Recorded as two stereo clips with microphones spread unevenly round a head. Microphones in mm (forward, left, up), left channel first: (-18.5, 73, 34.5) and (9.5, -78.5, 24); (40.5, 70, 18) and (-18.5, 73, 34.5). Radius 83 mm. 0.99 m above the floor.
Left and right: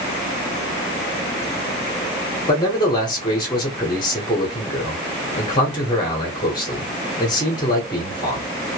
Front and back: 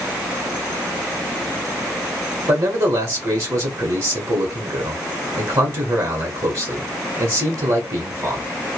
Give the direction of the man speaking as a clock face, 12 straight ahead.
7 o'clock.